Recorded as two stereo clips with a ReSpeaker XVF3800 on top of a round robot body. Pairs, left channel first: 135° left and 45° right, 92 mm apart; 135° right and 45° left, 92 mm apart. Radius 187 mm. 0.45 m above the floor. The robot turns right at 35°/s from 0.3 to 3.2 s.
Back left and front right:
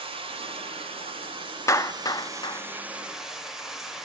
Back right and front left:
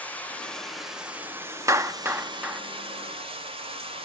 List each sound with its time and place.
0.0 s running water: 60° right, 2.0 m; by 4.1 s 40° left, 2.0 m
1.7 s a clap: 90° left, 1.0 m; by 2.6 s 120° left, 1.0 m